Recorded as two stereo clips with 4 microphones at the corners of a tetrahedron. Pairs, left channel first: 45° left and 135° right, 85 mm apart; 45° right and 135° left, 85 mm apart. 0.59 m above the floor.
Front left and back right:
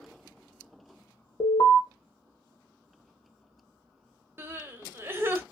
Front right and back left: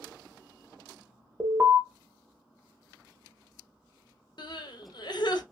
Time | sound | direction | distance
1.4 | an alarm | 75° left | 1.2 m
4.4 | crying | 70° right | 0.7 m